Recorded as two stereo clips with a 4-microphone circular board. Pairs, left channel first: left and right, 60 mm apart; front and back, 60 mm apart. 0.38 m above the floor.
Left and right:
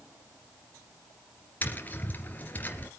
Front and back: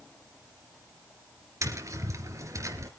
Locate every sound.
1.6 s tapping: 150° left, 2.5 m